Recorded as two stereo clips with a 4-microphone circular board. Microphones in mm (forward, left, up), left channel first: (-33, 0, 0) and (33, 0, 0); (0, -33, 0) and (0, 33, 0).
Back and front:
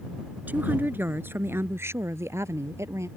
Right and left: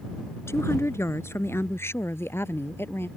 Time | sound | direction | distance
0.5 | a woman speaking | 60° right | ?